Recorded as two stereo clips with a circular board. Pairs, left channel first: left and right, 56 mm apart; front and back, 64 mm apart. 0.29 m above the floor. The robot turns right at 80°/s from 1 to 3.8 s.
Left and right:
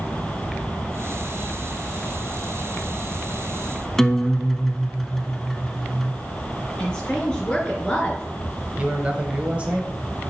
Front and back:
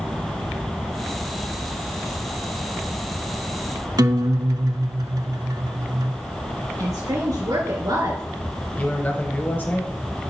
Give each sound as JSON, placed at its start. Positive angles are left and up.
{"t": 4.0, "sound": "a guitar", "azimuth_deg": 175, "distance_m": 0.6}
{"t": 6.8, "sound": "a woman speaking", "azimuth_deg": 165, "distance_m": 3.5}
{"t": 8.8, "sound": "a man speaking", "azimuth_deg": -40, "distance_m": 1.1}